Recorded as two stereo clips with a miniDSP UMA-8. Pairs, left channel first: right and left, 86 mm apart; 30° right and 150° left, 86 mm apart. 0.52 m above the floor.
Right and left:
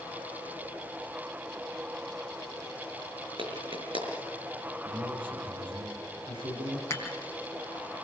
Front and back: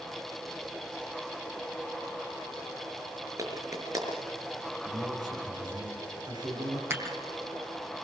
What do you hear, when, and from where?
3.4 s a clap: 100° left, 5.5 m
4.8 s a man speaking: 110° left, 6 m
6.9 s dishes clattering: 145° right, 3.5 m